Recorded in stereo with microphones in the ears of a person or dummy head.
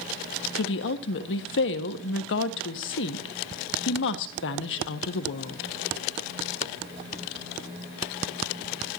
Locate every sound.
0.6 s a woman speaking: 60° left (ahead or behind), 1.4 m